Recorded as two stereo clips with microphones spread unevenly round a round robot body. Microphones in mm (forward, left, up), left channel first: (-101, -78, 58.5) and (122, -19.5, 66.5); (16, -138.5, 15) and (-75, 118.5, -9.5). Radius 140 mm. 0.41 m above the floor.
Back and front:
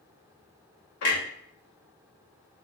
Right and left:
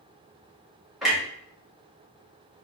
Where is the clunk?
165° right, 1.0 m.